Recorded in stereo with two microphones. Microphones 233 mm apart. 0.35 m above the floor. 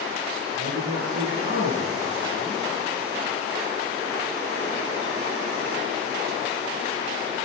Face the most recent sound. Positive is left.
turn(degrees=-50)  # may be behind; listen again after turning